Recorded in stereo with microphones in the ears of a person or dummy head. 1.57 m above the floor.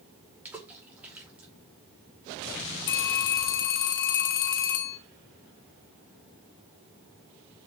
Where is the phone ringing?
70° left (ahead or behind), 1.7 m.